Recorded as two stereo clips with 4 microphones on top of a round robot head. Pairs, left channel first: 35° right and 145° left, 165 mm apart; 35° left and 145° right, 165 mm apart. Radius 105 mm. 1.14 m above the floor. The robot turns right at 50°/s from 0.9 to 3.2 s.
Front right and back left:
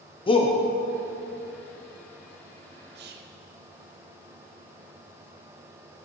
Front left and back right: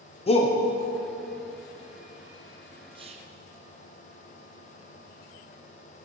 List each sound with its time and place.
0.3 s a shout: 5° left, 0.6 m
3.0 s whispering: 155° left, 0.6 m; by 3.4 s 170° left, 0.6 m